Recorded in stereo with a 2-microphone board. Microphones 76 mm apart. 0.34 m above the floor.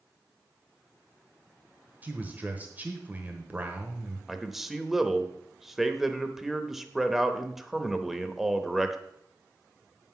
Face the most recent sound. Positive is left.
turn(degrees=-5)  # may be behind; listen again after turning